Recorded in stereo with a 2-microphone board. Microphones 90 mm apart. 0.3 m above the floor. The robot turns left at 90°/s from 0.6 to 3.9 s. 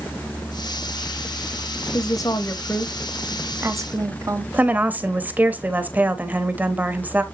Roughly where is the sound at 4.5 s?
Centre.